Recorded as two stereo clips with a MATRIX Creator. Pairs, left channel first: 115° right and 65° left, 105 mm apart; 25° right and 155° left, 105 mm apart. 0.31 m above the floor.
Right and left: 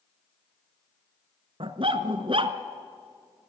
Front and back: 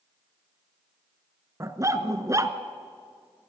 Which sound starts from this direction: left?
A dog barking, at 1.6 s.